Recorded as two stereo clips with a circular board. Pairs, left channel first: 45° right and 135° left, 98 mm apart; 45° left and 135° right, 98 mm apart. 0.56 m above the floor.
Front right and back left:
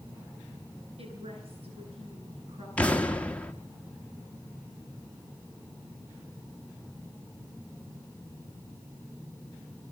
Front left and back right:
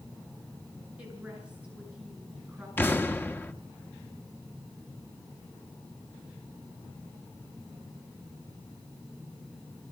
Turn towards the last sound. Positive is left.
turn(degrees=10)